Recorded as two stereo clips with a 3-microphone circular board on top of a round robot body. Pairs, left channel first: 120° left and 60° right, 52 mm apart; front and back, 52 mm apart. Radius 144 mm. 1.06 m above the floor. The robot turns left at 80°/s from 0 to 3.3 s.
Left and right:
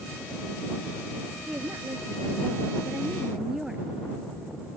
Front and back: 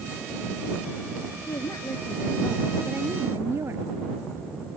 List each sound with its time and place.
1.5 s a woman speaking: 5° left; by 3.9 s 140° right